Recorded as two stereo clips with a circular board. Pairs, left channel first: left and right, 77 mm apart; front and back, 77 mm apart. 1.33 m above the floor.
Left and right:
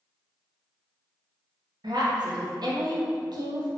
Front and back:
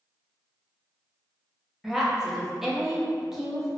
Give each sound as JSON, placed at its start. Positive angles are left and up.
{"t": 1.8, "sound": "a woman speaking", "azimuth_deg": -95, "distance_m": 0.6}